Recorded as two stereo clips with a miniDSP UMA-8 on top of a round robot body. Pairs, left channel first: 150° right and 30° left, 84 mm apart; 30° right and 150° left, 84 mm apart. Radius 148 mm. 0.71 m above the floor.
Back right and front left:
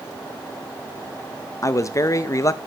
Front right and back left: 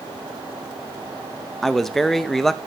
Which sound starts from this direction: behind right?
A man speaking, at 1.6 s.